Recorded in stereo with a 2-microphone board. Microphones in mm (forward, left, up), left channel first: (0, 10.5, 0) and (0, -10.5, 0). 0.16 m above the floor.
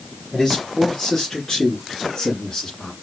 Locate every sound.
0.3 s a man speaking: 15° left (ahead or behind), 3 m; by 2.9 s 20° left (ahead or behind), 2.5 m